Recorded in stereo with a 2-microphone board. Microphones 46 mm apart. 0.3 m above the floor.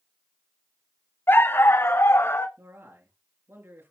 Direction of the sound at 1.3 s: 55° left (ahead or behind).